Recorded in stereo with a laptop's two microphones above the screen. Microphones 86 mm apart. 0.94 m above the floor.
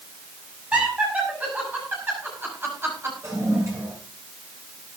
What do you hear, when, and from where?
0.7 s laughter: 15° right (ahead or behind), 6 m; by 3.1 s 30° right (ahead or behind), 4.5 m
3.2 s a toilet flushing: 40° right (ahead or behind), 6.5 m